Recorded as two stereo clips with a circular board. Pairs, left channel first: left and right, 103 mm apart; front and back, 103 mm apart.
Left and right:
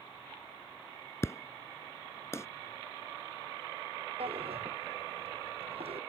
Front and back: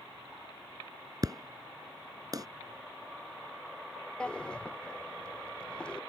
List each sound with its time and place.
1.2 s an explosion: 145° left
4.2 s a drawer: 80° right